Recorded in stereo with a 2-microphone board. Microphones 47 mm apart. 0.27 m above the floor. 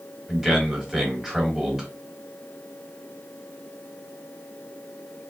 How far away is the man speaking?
About 1.5 m.